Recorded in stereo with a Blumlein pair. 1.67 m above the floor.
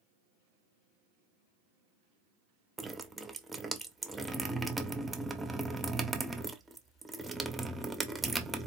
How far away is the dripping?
About 0.6 m.